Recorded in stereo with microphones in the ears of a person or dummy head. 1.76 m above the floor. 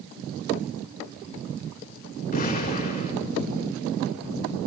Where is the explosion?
45° left (ahead or behind), 5.5 m.